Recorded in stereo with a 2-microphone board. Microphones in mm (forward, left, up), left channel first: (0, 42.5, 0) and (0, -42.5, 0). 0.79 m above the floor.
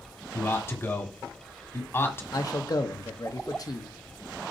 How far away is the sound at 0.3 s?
About 1.4 m.